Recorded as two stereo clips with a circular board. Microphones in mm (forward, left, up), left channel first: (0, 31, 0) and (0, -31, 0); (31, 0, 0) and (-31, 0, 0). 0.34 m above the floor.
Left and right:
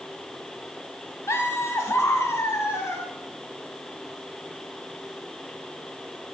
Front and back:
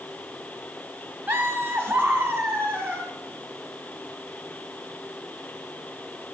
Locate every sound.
1.3 s laughter: 130° left, 2.5 m